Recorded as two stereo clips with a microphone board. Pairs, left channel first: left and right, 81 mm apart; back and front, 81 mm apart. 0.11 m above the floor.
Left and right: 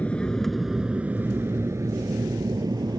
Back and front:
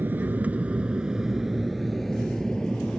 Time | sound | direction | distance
0.0 | an aircraft | 35° left | ?